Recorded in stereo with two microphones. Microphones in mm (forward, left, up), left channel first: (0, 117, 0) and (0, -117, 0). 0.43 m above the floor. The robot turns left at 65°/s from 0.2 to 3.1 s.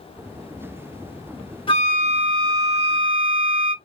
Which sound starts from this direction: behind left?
A flute, at 1.7 s.